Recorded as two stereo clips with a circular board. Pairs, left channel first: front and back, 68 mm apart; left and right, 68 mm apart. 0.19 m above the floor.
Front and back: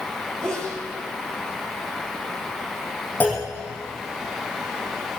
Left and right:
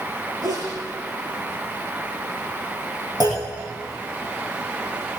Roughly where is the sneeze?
Right.